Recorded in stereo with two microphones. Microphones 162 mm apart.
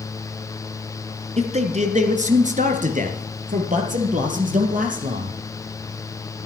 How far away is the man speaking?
About 1.5 m.